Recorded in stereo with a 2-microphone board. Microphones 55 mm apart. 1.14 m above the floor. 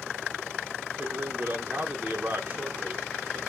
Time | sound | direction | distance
1.0 | a man speaking | 35° right (ahead or behind) | 1.0 m